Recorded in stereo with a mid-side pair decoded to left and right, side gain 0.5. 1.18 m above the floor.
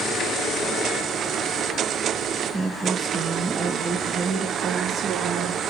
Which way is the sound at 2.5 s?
10° right.